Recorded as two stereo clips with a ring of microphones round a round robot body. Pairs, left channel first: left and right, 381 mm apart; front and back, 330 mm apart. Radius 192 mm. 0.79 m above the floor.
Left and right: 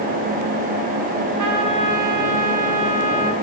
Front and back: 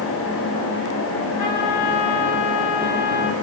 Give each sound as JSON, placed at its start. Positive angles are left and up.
{"t": 1.4, "sound": "a trumpet", "azimuth_deg": -45, "distance_m": 6.5}